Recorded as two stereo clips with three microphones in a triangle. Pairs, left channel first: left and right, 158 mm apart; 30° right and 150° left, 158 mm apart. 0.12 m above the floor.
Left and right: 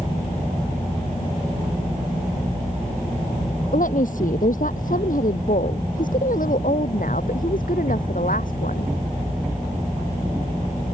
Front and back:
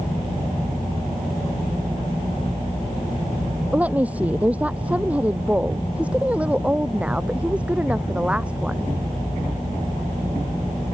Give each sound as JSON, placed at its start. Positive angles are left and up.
{"t": 3.7, "sound": "a woman speaking", "azimuth_deg": 70}